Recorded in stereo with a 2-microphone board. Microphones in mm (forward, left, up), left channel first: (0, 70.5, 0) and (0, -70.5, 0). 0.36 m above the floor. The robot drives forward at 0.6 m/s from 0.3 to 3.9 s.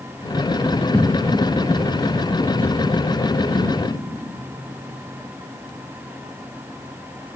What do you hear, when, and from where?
0.9 s footsteps: 5° left (ahead or behind), 2.5 m; by 3.8 s 40° left (ahead or behind), 6.5 m